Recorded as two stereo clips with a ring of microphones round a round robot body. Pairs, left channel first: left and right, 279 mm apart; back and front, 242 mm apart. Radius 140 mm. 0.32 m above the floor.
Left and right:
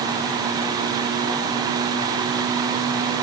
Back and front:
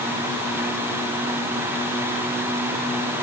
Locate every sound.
Only background noise.